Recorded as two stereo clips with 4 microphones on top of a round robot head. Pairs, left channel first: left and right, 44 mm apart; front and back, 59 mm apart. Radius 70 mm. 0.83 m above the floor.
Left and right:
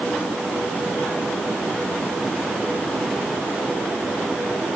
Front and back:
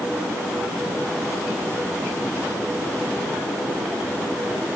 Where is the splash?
I don't hear a splash.